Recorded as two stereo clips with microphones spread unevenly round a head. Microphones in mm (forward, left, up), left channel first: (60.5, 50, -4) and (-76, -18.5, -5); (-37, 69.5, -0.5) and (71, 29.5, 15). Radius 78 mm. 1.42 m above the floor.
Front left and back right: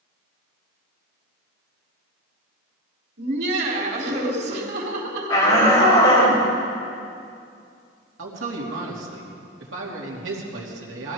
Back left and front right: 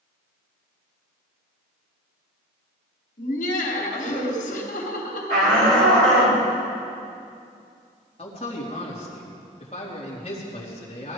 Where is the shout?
40° right, 5.5 m.